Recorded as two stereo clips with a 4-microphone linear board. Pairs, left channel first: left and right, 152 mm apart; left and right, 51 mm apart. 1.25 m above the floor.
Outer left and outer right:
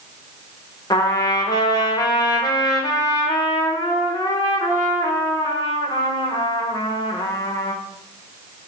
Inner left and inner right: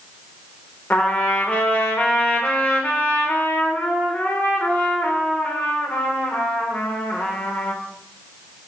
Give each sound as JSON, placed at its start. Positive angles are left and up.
{"t": 0.9, "sound": "a trumpet", "side_deg": 25, "distance_m": 0.6}